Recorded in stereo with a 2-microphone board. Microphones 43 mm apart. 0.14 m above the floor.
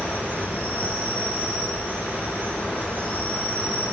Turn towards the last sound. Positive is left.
turn(degrees=45)  # may be behind; listen again after turning